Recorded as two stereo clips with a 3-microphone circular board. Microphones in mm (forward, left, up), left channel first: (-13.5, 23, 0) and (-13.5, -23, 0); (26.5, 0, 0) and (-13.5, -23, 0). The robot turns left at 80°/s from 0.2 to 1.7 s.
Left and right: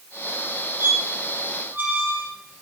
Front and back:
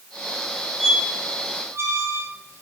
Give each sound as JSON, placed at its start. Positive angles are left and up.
{"t": 0.8, "sound": "a squeak", "azimuth_deg": -60, "distance_m": 2.0}